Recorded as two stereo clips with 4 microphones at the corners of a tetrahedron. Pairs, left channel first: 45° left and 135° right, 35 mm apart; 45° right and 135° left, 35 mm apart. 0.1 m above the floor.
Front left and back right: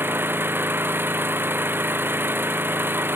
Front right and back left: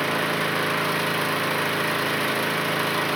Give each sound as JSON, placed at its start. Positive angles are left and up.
{"t": 0.0, "sound": "an engine running", "azimuth_deg": -140}